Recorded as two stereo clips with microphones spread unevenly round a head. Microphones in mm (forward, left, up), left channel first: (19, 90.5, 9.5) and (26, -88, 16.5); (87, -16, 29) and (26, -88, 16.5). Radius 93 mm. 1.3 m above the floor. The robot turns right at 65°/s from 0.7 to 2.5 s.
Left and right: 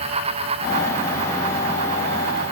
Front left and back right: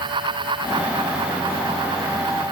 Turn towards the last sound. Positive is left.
No sound to turn to.